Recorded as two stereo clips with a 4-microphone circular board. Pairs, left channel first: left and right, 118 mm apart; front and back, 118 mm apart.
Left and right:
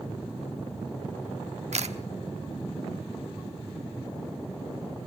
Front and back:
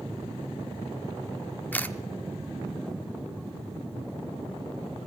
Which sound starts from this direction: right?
A camera shutter, at 1.7 s.